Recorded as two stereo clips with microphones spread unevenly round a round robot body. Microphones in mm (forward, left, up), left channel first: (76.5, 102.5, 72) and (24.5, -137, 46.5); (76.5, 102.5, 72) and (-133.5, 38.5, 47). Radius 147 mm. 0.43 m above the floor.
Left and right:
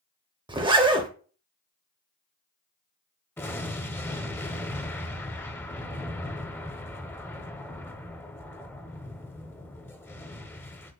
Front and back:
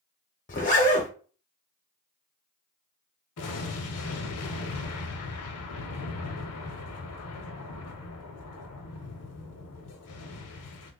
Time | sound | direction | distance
0.5 | a zipper | 40° right | 0.8 m
3.4 | an explosion | 5° right | 0.6 m